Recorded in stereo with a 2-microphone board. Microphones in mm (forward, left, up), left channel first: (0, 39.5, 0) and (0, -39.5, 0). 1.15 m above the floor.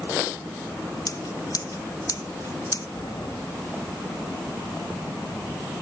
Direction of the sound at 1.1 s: 50° left (ahead or behind).